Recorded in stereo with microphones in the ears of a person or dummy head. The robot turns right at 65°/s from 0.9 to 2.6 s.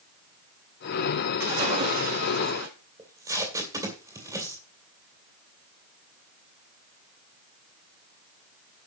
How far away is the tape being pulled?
About 2 m.